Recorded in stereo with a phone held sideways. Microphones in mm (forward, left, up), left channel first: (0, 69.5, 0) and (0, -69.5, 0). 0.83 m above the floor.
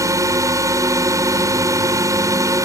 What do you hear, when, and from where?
0.0 s a drone: 20° right (ahead or behind)